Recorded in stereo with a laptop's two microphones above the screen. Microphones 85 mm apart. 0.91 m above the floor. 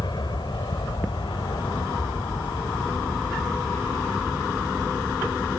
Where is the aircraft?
60° left (ahead or behind); by 5.6 s 75° left (ahead or behind).